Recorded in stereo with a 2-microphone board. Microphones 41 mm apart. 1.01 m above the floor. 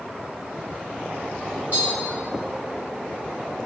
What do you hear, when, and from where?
1.7 s tapping: 45° right (ahead or behind), 1.4 m